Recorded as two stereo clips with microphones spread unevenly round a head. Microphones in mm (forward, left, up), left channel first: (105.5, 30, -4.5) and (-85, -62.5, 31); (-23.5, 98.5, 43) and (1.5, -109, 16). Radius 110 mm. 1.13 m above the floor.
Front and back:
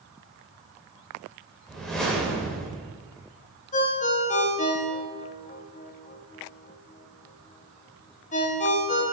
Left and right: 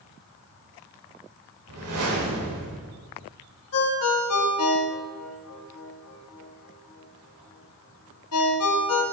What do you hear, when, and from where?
1.7 s a whoosh: 70° right, 1.4 m
3.7 s a ringtone: 85° left, 0.9 m